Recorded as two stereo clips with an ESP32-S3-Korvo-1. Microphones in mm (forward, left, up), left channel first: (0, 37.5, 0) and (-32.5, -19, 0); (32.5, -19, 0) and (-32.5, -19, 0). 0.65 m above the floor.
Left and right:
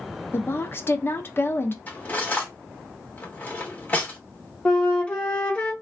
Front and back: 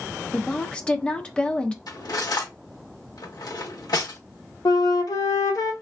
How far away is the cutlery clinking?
About 0.9 m.